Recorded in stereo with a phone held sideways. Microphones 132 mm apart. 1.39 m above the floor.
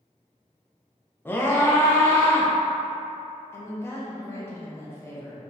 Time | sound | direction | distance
1.2 | a scream | 15° left (ahead or behind) | 0.8 m
3.5 | a woman speaking | 20° left (ahead or behind) | 1.1 m